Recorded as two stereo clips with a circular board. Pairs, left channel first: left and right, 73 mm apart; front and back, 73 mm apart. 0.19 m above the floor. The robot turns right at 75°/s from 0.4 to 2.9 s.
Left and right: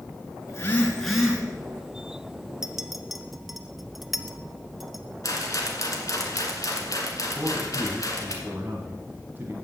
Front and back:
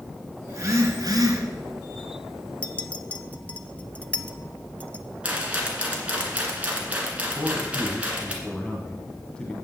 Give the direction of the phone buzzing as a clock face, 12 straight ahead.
8 o'clock.